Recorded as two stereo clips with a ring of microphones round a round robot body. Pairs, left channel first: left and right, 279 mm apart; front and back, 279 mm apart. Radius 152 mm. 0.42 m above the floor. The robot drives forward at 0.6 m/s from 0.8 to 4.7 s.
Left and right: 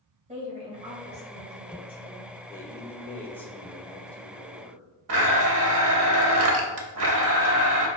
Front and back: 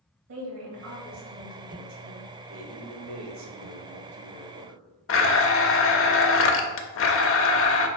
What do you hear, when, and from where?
0.3 s a woman speaking: 155° right, 2.0 m; by 2.3 s 160° right, 2.5 m
2.5 s a man speaking: 170° left, 1.0 m; by 4.8 s 175° left, 2 m
5.1 s a blender: 45° right, 0.6 m